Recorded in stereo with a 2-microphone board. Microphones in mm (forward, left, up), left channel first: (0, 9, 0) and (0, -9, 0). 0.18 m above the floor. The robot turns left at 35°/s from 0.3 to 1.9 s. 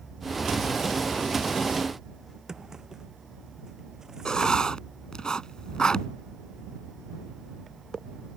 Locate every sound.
2.5 s a drawer: 35° right (ahead or behind)
4.2 s writing: 45° left (ahead or behind)